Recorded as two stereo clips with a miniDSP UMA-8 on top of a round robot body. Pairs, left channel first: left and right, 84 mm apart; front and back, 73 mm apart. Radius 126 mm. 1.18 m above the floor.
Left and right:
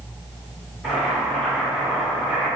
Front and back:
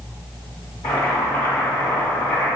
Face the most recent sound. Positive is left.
turn(degrees=10)